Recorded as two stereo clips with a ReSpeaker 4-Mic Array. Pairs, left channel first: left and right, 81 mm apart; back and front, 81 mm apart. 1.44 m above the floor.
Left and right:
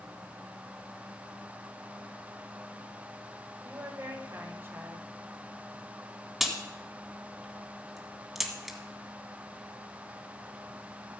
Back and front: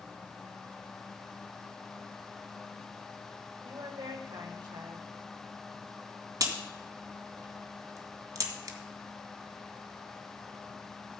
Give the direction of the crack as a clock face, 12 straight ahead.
12 o'clock.